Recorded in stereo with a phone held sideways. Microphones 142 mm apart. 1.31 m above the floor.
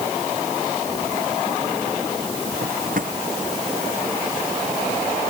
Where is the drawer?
65° right (ahead or behind).